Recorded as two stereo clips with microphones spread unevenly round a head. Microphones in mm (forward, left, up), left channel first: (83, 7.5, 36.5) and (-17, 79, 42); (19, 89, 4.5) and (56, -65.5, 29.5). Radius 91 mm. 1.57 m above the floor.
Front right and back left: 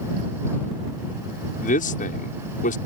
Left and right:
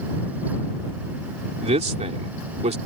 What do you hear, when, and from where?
1.6 s a man speaking: 30° right